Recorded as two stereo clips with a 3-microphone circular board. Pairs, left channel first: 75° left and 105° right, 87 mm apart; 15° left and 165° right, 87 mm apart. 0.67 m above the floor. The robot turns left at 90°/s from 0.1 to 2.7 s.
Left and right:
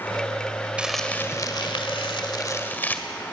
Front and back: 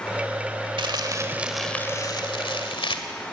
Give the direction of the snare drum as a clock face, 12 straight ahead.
I don't hear a snare drum.